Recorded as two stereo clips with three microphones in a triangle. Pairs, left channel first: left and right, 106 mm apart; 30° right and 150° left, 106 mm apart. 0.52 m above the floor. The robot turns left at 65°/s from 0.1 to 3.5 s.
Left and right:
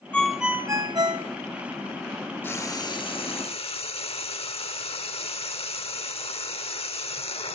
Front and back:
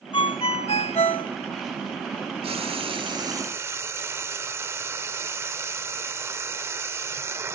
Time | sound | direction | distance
0.1 | a ringtone | 10° left | 0.8 m
2.4 | frying | 155° left | 1.0 m